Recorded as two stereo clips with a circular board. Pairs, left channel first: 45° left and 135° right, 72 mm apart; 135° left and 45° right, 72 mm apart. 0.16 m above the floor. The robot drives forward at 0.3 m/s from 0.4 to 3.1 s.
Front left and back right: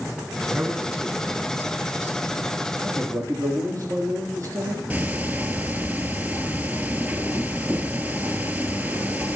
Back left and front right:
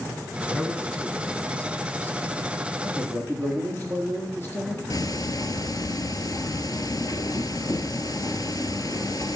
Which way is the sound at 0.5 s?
165° right.